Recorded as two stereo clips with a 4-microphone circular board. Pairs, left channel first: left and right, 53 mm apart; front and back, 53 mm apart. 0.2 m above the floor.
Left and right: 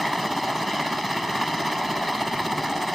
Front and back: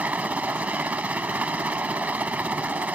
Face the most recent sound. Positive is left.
turn(degrees=180)